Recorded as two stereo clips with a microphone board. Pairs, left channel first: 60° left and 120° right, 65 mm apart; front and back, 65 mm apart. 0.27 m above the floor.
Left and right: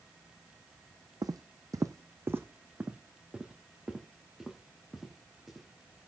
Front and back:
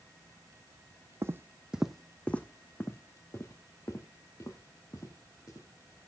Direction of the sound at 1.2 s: 135° right.